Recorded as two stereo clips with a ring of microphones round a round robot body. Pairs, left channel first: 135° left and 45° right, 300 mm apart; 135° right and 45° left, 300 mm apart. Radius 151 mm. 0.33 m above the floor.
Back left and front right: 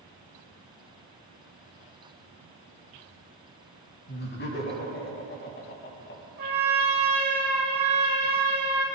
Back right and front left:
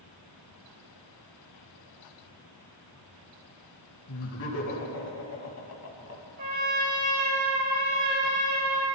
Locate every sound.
4.1 s laughter: 170° right, 3 m
6.4 s a trumpet: 15° left, 4 m